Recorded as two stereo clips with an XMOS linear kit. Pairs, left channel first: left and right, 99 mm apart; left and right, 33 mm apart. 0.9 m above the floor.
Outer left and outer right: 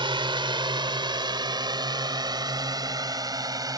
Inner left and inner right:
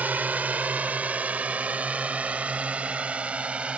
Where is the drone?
60° right (ahead or behind); by 3.8 s 40° right (ahead or behind).